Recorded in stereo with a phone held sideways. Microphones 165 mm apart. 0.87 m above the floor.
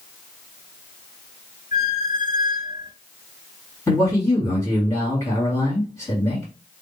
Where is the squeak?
60° left (ahead or behind), 1.3 m.